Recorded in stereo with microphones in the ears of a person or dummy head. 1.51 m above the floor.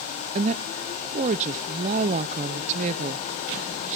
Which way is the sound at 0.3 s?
35° right (ahead or behind).